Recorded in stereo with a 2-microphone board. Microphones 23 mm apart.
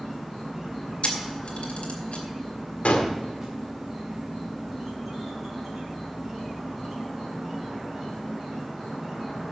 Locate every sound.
0.0 s an insect: 5° right (ahead or behind), 4.5 m
1.0 s a camera shutter: 65° left (ahead or behind), 2.5 m
2.9 s a gunshot: 85° left, 1.7 m